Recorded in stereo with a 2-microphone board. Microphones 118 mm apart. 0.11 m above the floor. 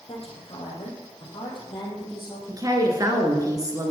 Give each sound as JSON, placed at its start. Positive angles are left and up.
{"t": 0.1, "sound": "a woman speaking", "side_deg": 55, "distance_m": 3.5}
{"t": 2.5, "sound": "a woman speaking", "side_deg": -30, "distance_m": 1.6}